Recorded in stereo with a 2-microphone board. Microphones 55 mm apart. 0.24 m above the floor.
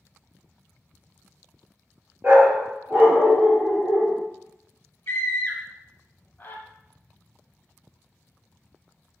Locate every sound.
2.2 s a dog barking: 35° right (ahead or behind), 1.9 m
5.1 s a scream: 30° left (ahead or behind), 1.2 m